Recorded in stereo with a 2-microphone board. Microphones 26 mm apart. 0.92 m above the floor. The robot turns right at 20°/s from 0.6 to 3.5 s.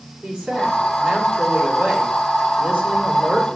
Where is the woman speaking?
135° right, 3 m; by 3.6 s 80° right, 3 m.